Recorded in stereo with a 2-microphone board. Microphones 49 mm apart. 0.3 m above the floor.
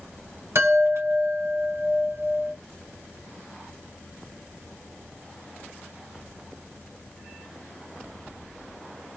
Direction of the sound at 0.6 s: 75° right (ahead or behind).